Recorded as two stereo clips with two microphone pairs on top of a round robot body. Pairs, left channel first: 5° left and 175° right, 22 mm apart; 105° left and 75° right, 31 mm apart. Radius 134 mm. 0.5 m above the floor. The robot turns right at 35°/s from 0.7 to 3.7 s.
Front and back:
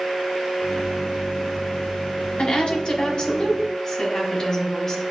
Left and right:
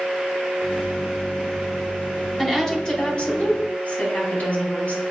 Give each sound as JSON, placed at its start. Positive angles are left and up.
{"t": 2.4, "sound": "a woman speaking", "azimuth_deg": 30, "distance_m": 2.0}